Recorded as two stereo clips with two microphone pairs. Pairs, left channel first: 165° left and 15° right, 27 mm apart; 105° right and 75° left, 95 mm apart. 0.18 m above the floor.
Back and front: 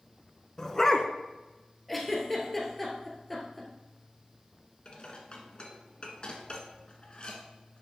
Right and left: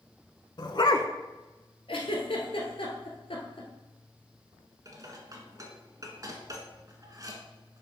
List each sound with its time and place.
0.6 s a dog barking: 130° right, 0.7 m
1.9 s a giggle: 110° right, 1.5 m
4.8 s dishes clattering: 120° left, 1.4 m